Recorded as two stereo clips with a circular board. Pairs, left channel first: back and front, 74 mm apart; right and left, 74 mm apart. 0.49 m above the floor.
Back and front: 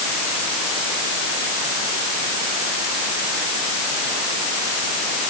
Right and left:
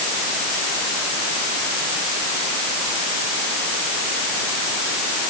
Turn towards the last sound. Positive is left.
No sound to turn to.